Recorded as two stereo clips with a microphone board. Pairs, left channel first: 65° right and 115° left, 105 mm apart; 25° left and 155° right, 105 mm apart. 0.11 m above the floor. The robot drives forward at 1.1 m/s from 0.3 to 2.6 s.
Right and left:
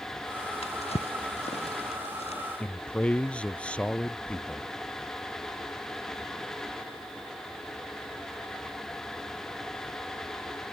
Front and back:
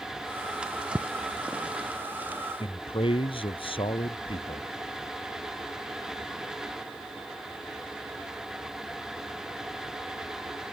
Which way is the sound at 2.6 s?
10° left.